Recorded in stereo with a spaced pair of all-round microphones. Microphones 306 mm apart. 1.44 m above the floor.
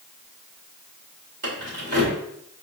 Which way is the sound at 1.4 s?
55° right (ahead or behind).